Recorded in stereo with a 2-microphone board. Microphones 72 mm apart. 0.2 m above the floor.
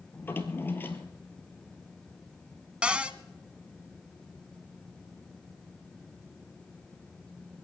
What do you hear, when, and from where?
0.1 s a drawer: 30° left (ahead or behind), 1.4 m
2.8 s a cupboard door: 15° right (ahead or behind), 0.7 m